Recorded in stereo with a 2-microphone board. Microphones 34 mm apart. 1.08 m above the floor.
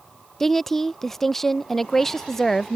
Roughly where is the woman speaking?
Centre.